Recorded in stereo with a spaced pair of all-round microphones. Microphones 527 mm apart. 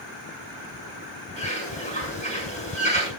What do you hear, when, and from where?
1.4 s a bird: 15° left (ahead or behind), 7 m